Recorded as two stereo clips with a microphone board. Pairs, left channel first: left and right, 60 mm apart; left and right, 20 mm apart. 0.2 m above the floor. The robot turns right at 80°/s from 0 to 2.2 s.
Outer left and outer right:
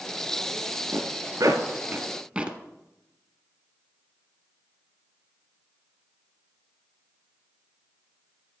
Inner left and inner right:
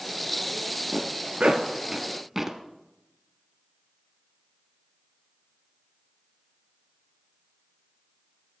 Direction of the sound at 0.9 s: 50° right (ahead or behind).